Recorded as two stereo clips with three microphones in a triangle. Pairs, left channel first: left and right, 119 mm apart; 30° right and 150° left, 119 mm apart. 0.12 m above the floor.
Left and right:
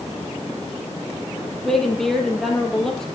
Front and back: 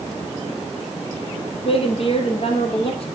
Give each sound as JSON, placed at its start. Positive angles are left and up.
{"t": 1.6, "sound": "a woman speaking", "azimuth_deg": 5, "distance_m": 3.0}